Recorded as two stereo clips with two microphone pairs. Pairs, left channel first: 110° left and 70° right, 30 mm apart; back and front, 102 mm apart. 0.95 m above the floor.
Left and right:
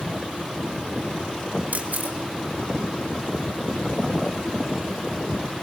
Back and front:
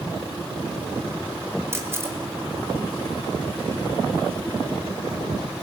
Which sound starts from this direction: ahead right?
A camera shutter, at 1.7 s.